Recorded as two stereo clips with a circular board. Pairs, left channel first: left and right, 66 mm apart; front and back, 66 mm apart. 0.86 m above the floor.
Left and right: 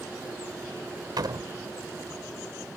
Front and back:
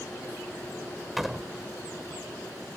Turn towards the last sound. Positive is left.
turn(degrees=-95)